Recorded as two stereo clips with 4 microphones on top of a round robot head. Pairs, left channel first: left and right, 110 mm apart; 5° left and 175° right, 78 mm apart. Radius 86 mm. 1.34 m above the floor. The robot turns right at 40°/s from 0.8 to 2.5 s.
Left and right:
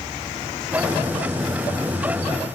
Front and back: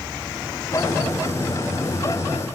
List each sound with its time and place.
Only background noise.